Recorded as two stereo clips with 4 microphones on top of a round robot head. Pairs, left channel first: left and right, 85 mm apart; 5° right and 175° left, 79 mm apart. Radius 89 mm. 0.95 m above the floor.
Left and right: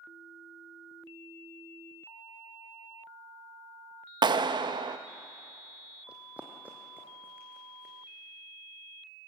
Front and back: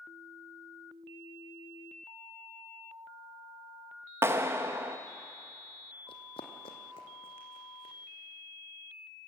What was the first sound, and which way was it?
A clap, 120° right.